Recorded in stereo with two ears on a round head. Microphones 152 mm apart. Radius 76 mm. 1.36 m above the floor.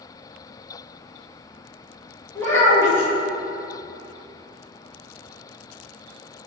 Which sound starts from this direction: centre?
A child speaking, at 2.4 s.